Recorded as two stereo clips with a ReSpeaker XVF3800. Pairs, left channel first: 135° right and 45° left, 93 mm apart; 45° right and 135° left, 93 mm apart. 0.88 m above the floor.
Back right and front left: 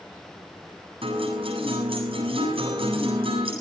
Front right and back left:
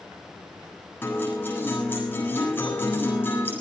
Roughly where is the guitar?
Ahead left.